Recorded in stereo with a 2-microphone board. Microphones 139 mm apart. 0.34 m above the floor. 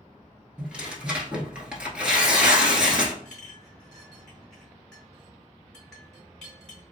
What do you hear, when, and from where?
0.6 s tearing paper: 10° right (ahead or behind), 0.8 m
3.2 s a clink: 5° left (ahead or behind), 1.8 m